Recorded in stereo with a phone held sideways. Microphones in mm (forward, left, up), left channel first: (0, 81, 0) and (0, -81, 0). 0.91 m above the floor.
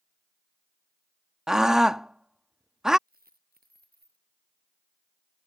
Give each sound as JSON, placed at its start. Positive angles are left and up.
{"t": 1.5, "sound": "a scream", "side_deg": -5}
{"t": 3.1, "sound": "a dropped coin", "side_deg": -65}